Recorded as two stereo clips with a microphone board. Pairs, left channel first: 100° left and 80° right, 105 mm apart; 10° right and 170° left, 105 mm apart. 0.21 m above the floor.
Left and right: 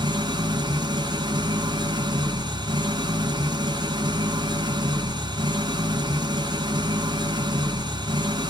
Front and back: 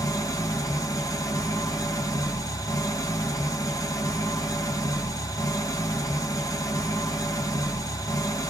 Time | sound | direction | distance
0.0 | an engine running | 55° right | 1.9 m